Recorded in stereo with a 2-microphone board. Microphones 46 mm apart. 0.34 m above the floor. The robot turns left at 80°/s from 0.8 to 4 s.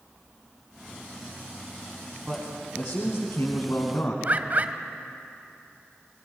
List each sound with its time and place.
2.3 s a man speaking: 165° right, 2 m; by 4.1 s 55° left, 2 m
4.2 s a bird: 40° right (ahead or behind), 0.9 m